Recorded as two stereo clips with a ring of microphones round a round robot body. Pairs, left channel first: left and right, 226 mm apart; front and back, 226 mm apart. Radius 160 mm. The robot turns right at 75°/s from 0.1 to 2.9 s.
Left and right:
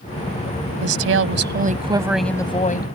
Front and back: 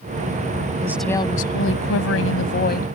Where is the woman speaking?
105° right; by 3.0 s 55° left.